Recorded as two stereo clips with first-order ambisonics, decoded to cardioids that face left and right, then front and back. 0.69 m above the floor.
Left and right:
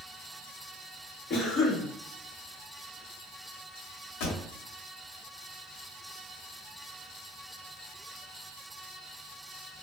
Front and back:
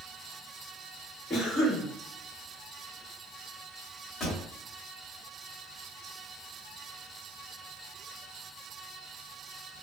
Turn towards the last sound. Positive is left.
turn(degrees=70)